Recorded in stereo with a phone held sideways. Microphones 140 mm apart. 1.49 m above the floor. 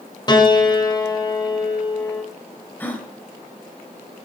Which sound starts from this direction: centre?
A gasp, at 2.8 s.